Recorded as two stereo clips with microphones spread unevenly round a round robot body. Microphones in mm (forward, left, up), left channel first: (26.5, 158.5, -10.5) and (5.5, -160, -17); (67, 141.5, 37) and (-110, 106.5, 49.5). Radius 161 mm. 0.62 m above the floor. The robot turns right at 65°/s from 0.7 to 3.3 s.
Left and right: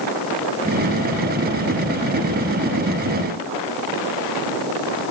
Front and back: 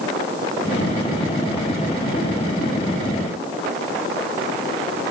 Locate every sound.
Only background noise.